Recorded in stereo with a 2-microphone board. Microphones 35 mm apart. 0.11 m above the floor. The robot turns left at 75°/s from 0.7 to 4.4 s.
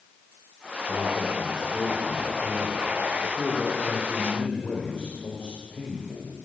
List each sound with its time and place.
0.9 s a man speaking: 20° left, 5.5 m; by 6.3 s 115° left, 5.5 m